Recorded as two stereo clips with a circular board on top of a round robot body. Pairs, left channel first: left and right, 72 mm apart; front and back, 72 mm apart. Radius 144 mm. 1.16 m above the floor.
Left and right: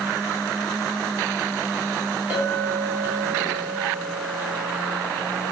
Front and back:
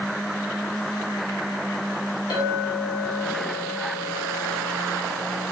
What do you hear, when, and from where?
2.3 s a clink: 20° right, 3 m